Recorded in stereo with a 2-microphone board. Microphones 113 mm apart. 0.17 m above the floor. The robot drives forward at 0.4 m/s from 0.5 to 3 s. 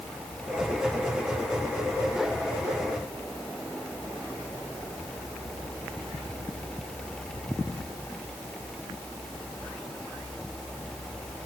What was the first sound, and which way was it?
Only background noise.